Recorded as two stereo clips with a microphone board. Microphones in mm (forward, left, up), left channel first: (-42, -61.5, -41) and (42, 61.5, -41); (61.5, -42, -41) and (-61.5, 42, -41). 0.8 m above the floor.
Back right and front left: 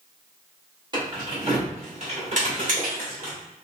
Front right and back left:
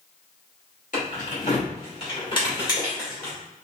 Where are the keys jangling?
5° right, 1.6 m; by 3.3 s 35° left, 2 m.